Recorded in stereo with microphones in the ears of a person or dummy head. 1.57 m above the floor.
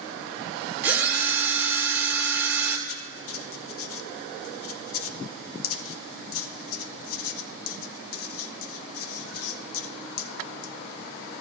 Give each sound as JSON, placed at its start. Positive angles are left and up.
{"t": 0.8, "sound": "a drill", "side_deg": -15, "distance_m": 2.5}
{"t": 2.9, "sound": "writing", "side_deg": 75, "distance_m": 0.9}